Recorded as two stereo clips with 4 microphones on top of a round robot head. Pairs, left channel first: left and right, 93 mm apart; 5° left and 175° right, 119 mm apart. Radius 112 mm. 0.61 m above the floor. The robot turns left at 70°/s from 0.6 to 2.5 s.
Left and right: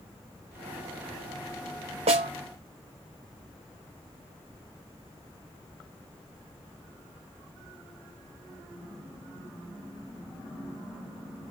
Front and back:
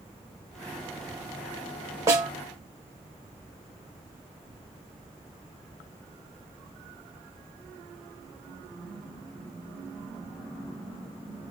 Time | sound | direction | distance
2.1 | a snare drum | 105° right | 0.8 m